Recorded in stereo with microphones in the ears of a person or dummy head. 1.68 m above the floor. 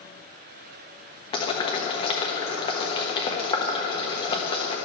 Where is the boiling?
30° left (ahead or behind), 1.2 m.